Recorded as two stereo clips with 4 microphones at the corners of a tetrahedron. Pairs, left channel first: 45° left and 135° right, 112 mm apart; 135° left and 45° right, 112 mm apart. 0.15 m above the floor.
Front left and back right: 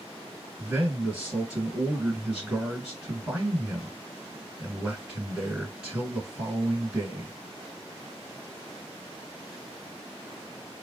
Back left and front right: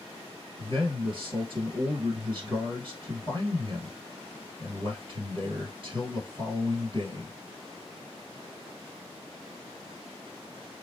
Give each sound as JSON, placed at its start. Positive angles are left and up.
{"t": 0.6, "sound": "a man speaking", "azimuth_deg": -50, "distance_m": 2.0}